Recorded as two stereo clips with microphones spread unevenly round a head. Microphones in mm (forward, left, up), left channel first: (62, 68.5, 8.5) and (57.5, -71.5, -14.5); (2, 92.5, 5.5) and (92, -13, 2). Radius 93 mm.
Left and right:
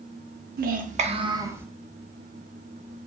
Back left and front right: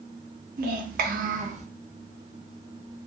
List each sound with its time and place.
0.6 s a child speaking: 80° right, 0.6 m; by 1.7 s 10° right, 0.7 m